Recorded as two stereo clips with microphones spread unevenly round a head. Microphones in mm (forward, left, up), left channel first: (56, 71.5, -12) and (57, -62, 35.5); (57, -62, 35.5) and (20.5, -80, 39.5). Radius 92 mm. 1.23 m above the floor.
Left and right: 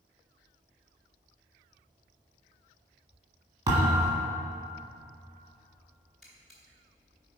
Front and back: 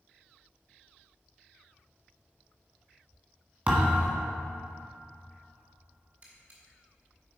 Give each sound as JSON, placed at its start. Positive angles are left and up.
{"t": 3.7, "sound": "a thud", "azimuth_deg": -120, "distance_m": 1.6}
{"t": 6.2, "sound": "a camera shutter", "azimuth_deg": -160, "distance_m": 0.9}